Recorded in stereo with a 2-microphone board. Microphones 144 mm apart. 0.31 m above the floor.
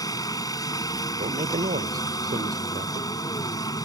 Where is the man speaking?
80° right.